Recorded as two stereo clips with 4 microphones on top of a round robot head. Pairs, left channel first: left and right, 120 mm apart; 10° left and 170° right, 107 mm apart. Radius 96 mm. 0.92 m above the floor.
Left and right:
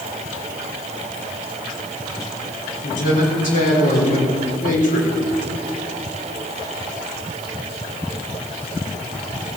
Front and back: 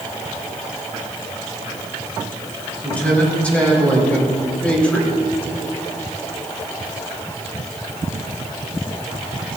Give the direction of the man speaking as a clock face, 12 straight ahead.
9 o'clock.